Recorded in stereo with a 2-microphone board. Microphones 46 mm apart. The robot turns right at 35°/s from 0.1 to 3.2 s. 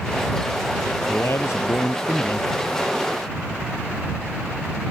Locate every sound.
1.1 s a man speaking: 70° left; by 2.5 s 120° left